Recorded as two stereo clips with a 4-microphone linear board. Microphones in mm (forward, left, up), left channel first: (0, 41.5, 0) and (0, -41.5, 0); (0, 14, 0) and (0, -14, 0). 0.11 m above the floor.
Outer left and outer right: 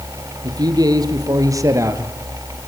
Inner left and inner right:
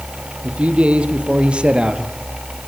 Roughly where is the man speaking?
Right.